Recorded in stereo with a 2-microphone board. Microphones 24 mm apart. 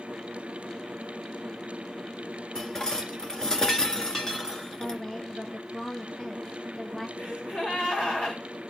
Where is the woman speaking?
25° left (ahead or behind), 1.4 m.